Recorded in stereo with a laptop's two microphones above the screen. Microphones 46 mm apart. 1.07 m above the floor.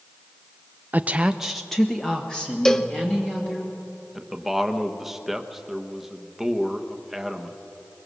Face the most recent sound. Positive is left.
turn(degrees=-5)  # may be behind; listen again after turning